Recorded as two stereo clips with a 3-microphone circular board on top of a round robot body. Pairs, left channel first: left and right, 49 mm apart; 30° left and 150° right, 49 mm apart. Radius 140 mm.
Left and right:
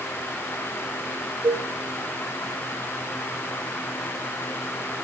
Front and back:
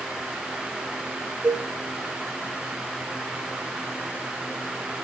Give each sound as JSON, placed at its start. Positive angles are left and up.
{"t": 1.4, "sound": "a cowbell", "azimuth_deg": -90, "distance_m": 3.0}